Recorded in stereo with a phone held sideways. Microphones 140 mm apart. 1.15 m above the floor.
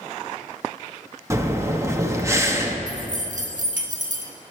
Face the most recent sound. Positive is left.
turn(degrees=-70)  # may be behind; listen again after turning